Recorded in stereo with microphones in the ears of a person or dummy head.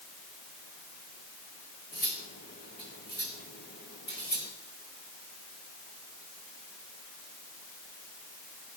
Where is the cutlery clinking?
35° left (ahead or behind), 1.1 m.